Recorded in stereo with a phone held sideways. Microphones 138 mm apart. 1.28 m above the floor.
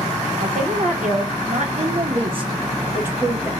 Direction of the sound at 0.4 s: 80° right.